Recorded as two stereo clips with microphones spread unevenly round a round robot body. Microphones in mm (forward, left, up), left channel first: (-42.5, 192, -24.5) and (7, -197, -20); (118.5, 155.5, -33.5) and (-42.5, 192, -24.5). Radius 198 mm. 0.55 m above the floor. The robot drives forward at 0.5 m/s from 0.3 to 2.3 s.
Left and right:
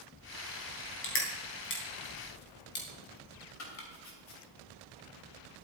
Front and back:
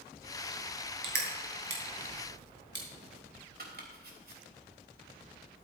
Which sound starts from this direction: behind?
Crushing, at 1.0 s.